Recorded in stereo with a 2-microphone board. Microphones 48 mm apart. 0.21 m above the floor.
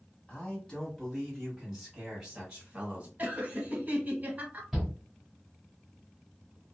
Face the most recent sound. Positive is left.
turn(degrees=0)  # may be behind; listen again after turning